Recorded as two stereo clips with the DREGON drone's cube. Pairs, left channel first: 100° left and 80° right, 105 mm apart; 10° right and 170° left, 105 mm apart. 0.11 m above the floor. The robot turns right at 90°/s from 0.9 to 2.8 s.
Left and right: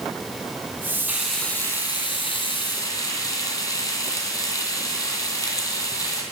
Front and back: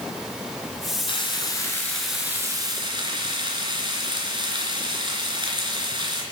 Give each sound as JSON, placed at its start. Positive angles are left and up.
{"t": 1.1, "sound": "frying", "azimuth_deg": -5, "distance_m": 2.5}